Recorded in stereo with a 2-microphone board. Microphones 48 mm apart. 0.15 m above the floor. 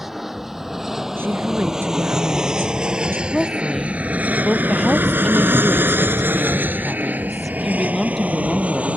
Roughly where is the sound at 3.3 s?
Centre.